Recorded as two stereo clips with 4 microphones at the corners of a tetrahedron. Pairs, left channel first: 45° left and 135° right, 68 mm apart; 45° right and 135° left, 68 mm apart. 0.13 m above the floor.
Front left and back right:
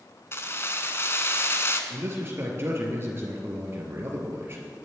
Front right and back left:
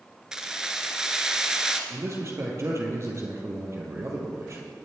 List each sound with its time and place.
0.3 s keys jangling: 60° left, 1.2 m
1.9 s a man speaking: 175° left, 3.5 m